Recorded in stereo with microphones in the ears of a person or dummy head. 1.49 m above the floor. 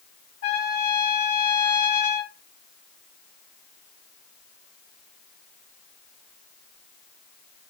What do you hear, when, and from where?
0.4 s a trumpet: 60° left (ahead or behind), 2 m